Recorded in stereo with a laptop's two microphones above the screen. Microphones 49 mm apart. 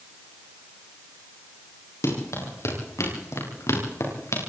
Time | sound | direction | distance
2.0 | running footsteps | 85° left | 10 m